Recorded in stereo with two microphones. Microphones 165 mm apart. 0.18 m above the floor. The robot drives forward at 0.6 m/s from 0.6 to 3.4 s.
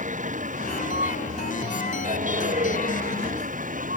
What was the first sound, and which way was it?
A vehicle, 50° right (ahead or behind).